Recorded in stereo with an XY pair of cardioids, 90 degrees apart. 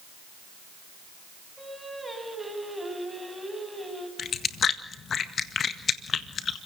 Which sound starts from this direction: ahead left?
Chewing, at 4.2 s.